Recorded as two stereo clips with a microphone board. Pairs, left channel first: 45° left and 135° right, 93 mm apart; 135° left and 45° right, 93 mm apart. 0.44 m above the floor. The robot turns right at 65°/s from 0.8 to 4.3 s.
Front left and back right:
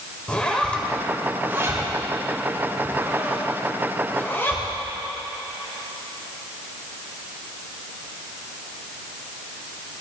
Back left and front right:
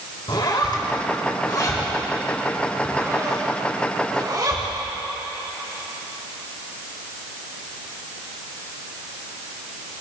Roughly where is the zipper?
Behind left.